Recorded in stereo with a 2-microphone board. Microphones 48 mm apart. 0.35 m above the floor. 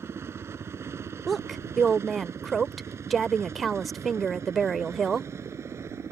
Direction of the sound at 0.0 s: 65° right (ahead or behind).